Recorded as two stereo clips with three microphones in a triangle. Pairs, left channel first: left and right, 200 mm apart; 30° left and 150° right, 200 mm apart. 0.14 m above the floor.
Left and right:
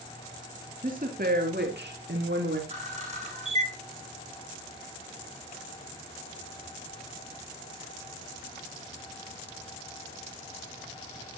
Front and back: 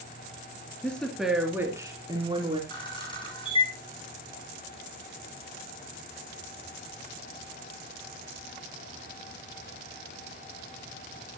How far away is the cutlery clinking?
I don't hear cutlery clinking.